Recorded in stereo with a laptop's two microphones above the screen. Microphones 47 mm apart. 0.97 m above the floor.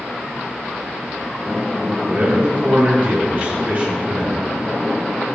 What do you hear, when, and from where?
2.1 s a man speaking: 35° right (ahead or behind), 2 m